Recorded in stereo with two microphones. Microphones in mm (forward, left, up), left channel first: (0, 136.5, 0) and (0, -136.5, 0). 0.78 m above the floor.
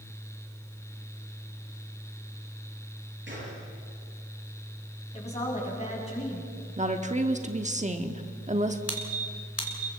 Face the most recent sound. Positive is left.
turn(degrees=65)  # may be behind; listen again after turning